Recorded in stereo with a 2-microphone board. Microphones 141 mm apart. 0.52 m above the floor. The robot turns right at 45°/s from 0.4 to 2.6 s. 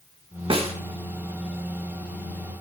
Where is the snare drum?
40° right (ahead or behind), 0.8 m; by 0.7 s 45° right (ahead or behind), 0.8 m.